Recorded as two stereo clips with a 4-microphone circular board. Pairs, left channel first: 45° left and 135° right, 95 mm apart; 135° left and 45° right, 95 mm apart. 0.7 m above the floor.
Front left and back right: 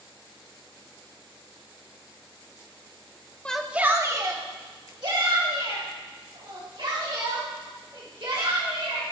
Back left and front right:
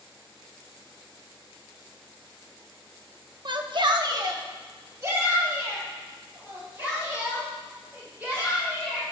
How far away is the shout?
About 0.8 m.